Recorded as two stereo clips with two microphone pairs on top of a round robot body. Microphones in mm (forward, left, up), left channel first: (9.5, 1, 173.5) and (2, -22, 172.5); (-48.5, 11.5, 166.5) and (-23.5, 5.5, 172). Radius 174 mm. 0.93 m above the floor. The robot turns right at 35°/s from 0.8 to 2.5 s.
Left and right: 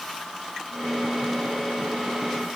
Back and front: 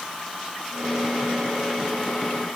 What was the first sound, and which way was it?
Only background noise.